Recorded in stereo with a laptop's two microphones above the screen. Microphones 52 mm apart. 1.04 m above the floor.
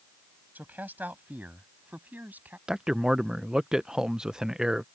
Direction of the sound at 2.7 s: 10° right (ahead or behind).